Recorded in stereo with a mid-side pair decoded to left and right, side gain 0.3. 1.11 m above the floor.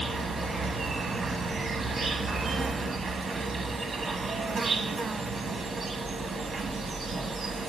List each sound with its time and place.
0.0 s an insect: 65° right, 0.9 m